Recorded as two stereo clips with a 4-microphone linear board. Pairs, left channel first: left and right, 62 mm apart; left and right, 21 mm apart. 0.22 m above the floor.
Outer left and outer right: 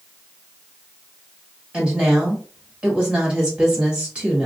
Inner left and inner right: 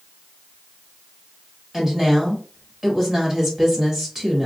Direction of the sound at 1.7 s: 20° right (ahead or behind).